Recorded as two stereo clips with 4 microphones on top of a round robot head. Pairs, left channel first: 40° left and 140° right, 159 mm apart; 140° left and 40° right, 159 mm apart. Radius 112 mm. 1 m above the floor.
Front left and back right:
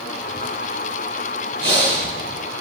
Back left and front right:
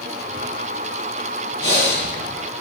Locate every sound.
1.6 s breathing: 90° right, 9 m